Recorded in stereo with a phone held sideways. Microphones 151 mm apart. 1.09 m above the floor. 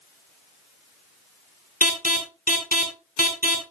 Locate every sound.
1.8 s an alarm: 75° left (ahead or behind), 2.5 m